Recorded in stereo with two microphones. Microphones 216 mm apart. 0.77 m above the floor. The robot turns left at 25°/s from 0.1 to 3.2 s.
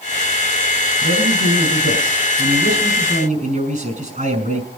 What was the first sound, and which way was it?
A man speaking, 85° right.